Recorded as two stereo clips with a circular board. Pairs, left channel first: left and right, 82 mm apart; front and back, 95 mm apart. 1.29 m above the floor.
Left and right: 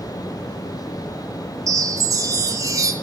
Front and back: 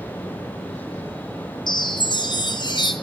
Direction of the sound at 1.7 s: 40° right.